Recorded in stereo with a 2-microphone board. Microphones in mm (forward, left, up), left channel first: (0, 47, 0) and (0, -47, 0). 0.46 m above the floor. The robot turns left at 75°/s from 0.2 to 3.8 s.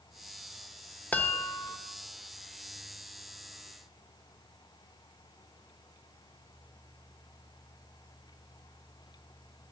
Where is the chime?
155° left, 1.0 m; by 1.8 s 105° left, 1.0 m.